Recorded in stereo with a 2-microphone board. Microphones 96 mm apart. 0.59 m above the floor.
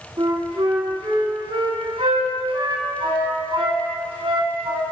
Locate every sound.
0.2 s a flute: 75° right (ahead or behind), 2 m